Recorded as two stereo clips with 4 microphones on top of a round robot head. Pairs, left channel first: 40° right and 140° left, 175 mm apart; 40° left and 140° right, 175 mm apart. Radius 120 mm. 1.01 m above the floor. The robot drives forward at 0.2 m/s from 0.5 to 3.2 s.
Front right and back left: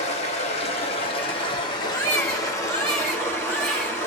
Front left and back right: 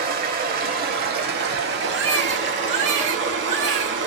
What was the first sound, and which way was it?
Running water, 100° right.